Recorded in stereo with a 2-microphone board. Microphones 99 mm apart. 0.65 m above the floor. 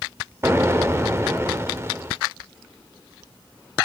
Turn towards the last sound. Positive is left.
turn(degrees=-25)  # may be behind; listen again after turning